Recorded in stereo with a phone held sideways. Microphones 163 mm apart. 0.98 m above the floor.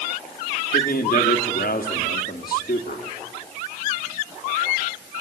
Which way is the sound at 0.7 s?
65° left (ahead or behind).